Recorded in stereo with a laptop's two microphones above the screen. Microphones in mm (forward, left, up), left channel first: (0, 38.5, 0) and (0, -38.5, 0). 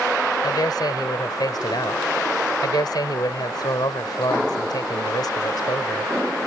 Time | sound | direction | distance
0.4 | a man speaking | 65° left (ahead or behind) | ?